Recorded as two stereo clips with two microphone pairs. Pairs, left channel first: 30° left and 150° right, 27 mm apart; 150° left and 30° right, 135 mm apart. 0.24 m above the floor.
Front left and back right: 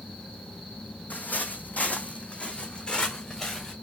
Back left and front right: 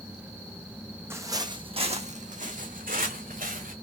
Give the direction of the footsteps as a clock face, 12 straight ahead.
11 o'clock.